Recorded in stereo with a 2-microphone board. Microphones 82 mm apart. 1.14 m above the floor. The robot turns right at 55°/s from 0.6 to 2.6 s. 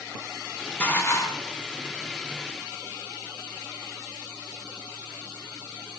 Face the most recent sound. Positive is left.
turn(degrees=120)